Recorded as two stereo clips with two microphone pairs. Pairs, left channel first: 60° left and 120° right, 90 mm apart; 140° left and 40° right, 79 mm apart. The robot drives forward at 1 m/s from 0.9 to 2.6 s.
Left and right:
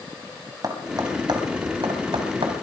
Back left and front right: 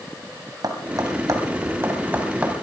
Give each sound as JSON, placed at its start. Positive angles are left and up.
{"t": 0.6, "sound": "tapping", "azimuth_deg": -75, "distance_m": 2.0}